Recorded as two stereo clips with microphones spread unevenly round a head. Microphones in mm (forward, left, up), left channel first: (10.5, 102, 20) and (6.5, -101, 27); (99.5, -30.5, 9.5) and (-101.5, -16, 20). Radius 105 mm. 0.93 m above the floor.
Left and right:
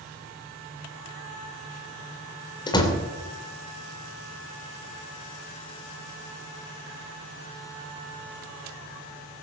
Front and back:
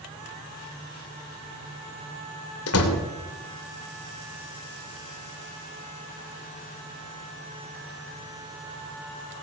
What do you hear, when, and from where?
2.7 s a door slam: 20° left, 2.5 m